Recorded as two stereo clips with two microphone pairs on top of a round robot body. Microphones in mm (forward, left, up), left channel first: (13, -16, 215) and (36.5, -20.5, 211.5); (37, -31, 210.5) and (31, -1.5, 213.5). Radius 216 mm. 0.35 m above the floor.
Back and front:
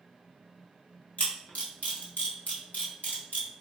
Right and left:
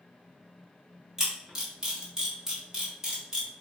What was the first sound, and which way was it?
A camera shutter, 175° left.